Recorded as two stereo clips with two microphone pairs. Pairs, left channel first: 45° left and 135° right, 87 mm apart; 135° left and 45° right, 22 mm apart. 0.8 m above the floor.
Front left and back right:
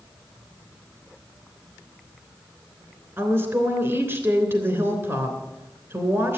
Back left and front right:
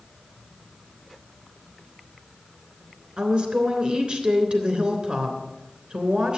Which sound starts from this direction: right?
A woman speaking, at 3.2 s.